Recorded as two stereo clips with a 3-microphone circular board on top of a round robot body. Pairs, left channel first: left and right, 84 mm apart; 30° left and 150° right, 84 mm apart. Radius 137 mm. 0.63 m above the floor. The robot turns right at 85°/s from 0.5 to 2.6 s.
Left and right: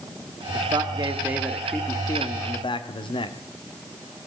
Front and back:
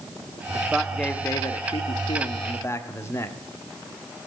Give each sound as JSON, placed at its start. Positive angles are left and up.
{"t": 0.5, "sound": "a man speaking", "azimuth_deg": -90, "distance_m": 1.4}